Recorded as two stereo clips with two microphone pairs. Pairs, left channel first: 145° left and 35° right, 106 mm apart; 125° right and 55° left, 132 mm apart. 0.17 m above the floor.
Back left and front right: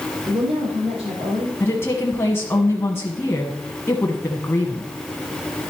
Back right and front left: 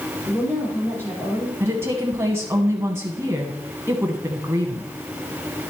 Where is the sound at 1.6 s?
105° left, 1.1 m.